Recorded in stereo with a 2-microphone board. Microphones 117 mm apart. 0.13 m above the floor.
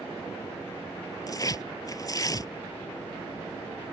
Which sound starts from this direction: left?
Tearing paper, at 1.3 s.